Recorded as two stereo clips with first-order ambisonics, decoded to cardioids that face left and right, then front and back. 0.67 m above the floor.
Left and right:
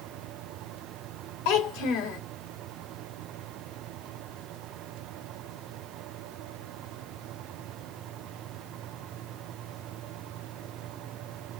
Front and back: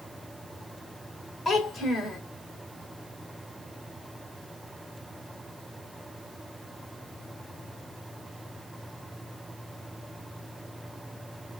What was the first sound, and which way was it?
A child speaking, 75° left.